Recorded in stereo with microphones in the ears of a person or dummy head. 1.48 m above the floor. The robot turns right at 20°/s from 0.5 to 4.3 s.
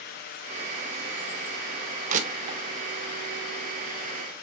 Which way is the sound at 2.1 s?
50° right (ahead or behind).